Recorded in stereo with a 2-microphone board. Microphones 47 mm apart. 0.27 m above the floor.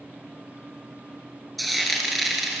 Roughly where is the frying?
Centre.